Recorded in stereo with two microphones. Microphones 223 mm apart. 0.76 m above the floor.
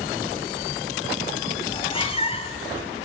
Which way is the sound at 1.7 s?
25° left (ahead or behind).